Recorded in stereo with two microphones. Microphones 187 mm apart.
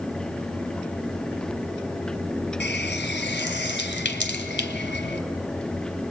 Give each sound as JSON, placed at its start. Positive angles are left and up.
{"t": 2.6, "sound": "a running tap", "side_deg": 65, "distance_m": 1.8}